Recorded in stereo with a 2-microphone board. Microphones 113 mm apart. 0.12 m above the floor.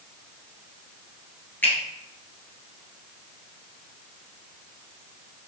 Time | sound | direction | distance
1.6 | a finger snap | 15° left (ahead or behind) | 2 m